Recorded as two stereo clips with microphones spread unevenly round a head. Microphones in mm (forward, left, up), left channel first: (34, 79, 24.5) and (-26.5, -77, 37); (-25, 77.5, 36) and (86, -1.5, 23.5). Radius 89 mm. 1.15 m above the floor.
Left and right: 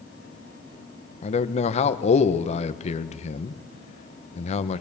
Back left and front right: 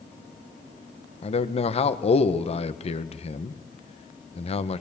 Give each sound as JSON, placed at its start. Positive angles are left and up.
{"t": 1.2, "sound": "a man speaking", "azimuth_deg": 105, "distance_m": 1.2}